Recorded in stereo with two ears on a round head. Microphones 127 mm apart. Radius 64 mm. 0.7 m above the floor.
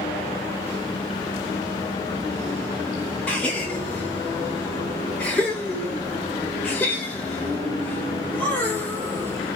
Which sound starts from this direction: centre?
A gasp, at 3.3 s.